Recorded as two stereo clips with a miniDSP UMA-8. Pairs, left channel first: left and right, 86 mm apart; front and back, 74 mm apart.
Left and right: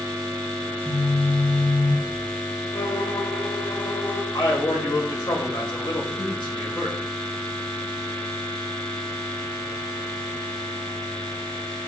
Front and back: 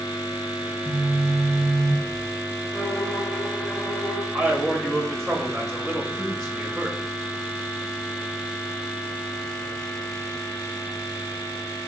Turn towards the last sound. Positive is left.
turn(degrees=90)